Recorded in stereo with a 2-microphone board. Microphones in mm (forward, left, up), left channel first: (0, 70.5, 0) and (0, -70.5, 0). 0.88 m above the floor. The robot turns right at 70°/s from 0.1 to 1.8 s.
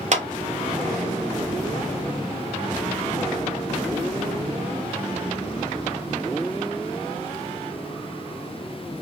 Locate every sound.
0.1 s a clap: 55° right (ahead or behind), 0.6 m; by 0.2 s 65° right (ahead or behind), 0.6 m